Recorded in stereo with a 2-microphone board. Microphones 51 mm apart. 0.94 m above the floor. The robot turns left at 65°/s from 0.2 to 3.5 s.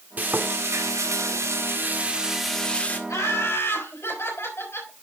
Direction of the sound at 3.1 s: 85° left.